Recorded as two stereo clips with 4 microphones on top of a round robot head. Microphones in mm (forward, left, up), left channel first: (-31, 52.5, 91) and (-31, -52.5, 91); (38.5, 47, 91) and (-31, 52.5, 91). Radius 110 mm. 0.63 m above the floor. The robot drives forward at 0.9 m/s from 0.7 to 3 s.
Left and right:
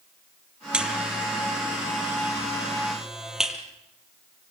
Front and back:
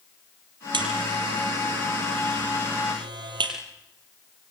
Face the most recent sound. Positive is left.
turn(degrees=-175)